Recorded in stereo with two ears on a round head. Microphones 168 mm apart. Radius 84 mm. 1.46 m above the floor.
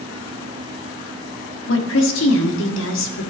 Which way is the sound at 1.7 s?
70° left (ahead or behind).